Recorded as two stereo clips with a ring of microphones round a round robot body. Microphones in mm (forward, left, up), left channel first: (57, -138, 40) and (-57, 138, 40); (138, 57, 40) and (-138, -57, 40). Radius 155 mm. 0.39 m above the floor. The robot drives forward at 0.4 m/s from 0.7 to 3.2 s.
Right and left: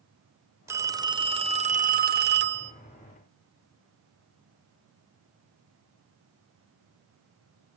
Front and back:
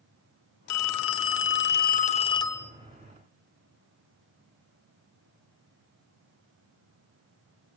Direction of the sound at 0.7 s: 35° left.